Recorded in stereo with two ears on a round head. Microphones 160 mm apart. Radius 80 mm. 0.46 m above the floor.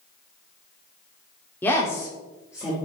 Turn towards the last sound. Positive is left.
turn(degrees=15)  # may be behind; listen again after turning